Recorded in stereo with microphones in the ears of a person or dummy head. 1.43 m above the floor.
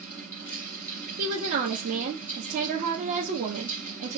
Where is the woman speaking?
50° right (ahead or behind), 0.9 m.